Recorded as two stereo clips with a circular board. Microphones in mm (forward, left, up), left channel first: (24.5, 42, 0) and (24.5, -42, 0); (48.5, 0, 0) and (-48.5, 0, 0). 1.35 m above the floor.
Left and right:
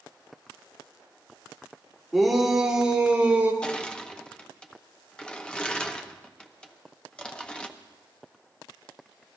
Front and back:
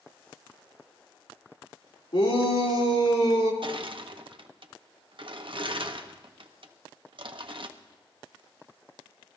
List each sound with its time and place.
2.1 s a shout: straight ahead, 3 m; by 3.5 s 20° right, 3 m
3.6 s crushing: 165° left, 0.9 m